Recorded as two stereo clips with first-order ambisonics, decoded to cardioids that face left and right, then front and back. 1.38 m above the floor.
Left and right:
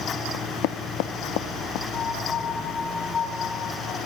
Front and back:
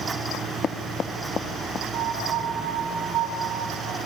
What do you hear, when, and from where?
0.3 s knocking: 65° left, 1.0 m
1.9 s a piano: 155° left, 5 m